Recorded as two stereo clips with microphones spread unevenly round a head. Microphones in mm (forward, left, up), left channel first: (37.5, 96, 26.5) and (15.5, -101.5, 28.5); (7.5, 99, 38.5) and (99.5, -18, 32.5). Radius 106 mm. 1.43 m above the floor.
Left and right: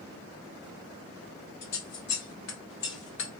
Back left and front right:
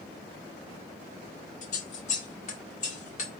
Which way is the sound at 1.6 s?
110° left.